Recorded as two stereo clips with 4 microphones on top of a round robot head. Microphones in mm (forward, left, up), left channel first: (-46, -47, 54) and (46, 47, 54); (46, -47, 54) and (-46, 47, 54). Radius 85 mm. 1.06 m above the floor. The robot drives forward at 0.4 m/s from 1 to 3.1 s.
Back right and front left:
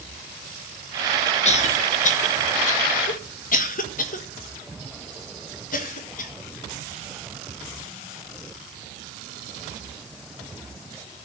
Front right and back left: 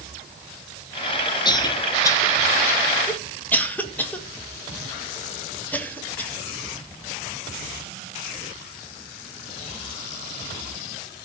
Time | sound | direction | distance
1.4 | a cough | 100° right | 1.7 m